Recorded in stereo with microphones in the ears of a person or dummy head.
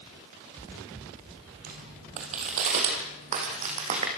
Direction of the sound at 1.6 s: 35° right (ahead or behind).